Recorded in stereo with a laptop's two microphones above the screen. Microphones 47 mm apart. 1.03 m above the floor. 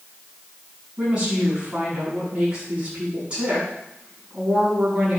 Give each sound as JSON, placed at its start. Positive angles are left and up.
{"t": 1.0, "sound": "a woman speaking", "side_deg": -20, "distance_m": 7.5}